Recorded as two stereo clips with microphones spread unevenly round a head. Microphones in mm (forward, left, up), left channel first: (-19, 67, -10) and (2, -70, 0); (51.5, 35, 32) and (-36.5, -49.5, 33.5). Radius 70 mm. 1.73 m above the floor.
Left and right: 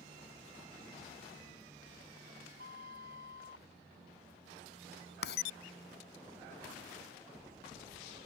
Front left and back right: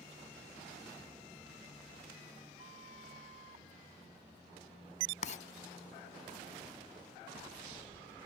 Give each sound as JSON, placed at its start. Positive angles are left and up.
{"t": 2.6, "sound": "a flute", "azimuth_deg": -90}
{"t": 5.2, "sound": "writing", "azimuth_deg": 80}